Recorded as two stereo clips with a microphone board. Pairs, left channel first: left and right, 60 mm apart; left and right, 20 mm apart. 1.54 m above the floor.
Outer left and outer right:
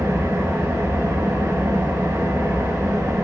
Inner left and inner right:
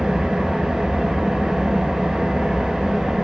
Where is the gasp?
I don't hear a gasp.